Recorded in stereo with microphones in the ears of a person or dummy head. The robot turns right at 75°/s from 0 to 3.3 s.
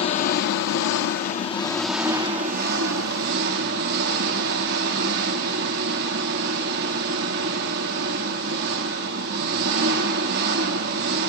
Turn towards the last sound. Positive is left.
turn(degrees=-70)